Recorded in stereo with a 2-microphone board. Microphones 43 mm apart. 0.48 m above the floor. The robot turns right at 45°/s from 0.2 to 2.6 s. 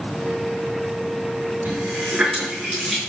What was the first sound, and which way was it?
A running tap, 40° right (ahead or behind).